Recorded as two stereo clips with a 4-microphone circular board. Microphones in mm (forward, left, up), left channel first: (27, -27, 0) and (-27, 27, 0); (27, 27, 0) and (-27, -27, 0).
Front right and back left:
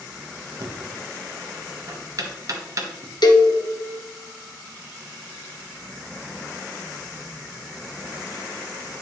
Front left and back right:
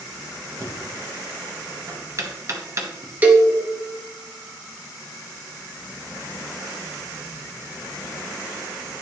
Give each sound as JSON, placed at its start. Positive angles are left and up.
{"t": 0.6, "sound": "knocking", "azimuth_deg": 175, "distance_m": 1.2}
{"t": 3.2, "sound": "a cowbell", "azimuth_deg": -65, "distance_m": 1.1}